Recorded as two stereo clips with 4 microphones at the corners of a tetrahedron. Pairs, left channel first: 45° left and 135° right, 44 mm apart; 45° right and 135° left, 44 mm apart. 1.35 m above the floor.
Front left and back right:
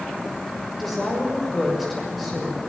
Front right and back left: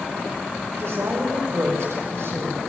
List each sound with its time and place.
0.8 s a woman speaking: 135° left, 6 m